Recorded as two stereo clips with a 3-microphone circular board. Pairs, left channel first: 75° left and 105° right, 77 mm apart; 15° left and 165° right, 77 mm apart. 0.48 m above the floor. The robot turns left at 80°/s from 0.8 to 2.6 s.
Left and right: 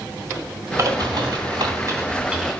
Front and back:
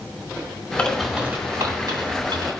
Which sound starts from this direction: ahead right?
A bird, at 0.8 s.